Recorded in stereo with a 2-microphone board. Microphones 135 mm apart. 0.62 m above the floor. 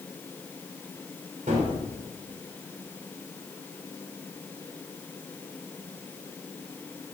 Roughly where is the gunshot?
Right.